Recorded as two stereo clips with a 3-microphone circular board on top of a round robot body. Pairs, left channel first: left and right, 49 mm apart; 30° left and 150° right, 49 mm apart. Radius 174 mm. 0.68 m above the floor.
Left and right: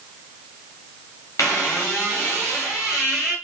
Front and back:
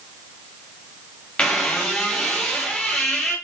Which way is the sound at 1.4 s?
105° left.